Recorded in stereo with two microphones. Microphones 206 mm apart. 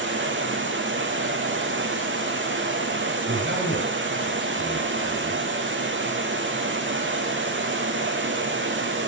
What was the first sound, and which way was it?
Running water, 65° right (ahead or behind).